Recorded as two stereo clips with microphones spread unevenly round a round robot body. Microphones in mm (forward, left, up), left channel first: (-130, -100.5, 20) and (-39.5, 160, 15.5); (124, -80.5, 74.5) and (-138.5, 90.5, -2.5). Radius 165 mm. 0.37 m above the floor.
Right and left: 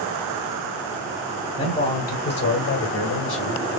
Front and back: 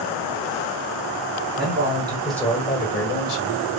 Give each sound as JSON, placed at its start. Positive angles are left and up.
{"t": 1.6, "sound": "a man speaking", "azimuth_deg": -175, "distance_m": 1.9}